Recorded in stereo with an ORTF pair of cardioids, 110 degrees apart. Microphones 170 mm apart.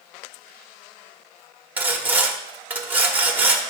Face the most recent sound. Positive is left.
turn(degrees=-10)